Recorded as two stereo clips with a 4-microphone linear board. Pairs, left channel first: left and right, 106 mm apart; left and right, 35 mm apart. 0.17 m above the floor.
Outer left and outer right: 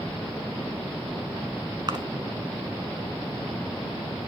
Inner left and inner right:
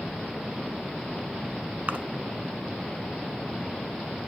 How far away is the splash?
About 0.9 m.